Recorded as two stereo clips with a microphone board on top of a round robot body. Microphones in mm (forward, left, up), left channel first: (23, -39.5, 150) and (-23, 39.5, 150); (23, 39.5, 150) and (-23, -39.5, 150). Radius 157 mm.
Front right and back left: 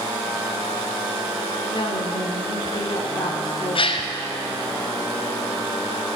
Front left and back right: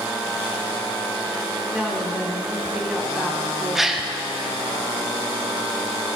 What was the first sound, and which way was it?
A woman speaking, 35° right.